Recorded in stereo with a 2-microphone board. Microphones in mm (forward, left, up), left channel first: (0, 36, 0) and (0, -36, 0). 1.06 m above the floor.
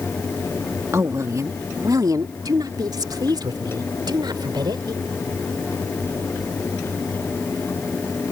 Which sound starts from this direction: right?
A woman speaking, at 0.9 s.